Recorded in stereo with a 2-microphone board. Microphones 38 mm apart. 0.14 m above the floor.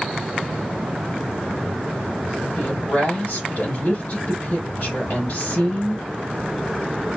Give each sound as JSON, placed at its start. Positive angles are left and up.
{"t": 2.6, "sound": "a woman speaking", "side_deg": 40, "distance_m": 1.6}